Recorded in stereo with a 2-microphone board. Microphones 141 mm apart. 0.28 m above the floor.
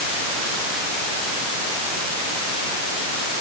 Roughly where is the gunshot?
I don't hear a gunshot.